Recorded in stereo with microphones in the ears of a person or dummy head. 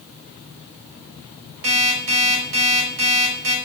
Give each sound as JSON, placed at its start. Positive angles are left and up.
{"t": 1.6, "sound": "an alarm clock", "side_deg": -85, "distance_m": 4.5}